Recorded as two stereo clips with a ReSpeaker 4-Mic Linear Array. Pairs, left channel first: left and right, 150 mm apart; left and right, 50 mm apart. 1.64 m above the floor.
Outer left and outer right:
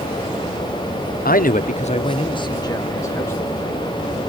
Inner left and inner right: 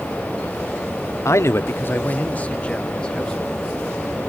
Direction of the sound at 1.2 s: 75° left (ahead or behind).